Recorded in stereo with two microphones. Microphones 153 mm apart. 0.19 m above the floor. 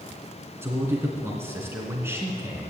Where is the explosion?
No explosion in this recording.